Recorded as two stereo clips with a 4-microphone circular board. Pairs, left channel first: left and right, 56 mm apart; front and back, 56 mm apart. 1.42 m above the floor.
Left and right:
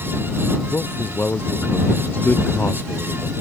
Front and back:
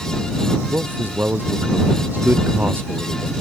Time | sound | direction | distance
0.7 | a man speaking | 130° left | ?